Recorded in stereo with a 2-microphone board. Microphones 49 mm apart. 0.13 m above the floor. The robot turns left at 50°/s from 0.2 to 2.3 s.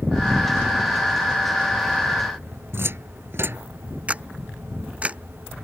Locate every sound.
2.7 s a cupboard door: 60° right (ahead or behind)
4.1 s a camera shutter: 30° right (ahead or behind)